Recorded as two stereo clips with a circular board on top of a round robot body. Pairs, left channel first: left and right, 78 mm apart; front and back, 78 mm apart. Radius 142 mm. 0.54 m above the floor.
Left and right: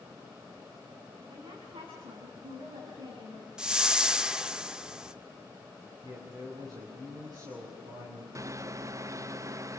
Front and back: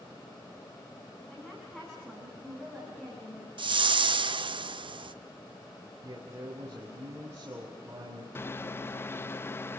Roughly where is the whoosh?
Behind.